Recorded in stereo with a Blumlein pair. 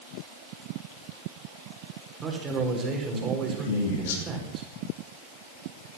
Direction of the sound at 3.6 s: 55° left.